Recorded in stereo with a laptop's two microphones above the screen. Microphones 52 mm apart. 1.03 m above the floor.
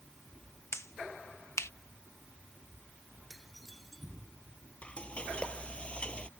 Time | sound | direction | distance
0.7 | a finger snap | 60° left (ahead or behind) | ?
3.3 | dishes clattering | centre (ahead or behind) | ?
4.8 | frying | 20° left (ahead or behind) | ?